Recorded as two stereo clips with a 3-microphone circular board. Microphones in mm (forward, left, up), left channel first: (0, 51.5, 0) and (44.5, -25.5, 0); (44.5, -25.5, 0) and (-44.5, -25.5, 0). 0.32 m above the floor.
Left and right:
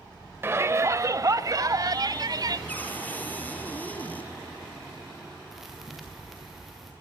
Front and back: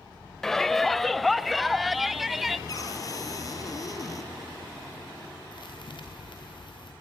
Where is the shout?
80° right, 1.0 m; by 2.6 s 95° right, 1.9 m.